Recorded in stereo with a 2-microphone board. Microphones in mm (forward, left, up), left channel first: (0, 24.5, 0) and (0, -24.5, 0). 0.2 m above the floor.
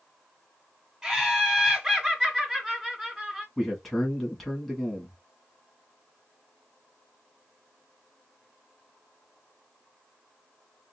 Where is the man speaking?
Centre (ahead or behind), 1.5 m.